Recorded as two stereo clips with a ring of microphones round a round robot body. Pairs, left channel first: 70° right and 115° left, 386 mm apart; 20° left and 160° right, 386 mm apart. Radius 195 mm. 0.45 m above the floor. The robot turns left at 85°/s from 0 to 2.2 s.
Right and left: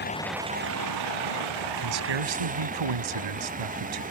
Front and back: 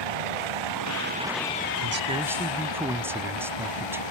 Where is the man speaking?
155° left; by 4.0 s 120° left.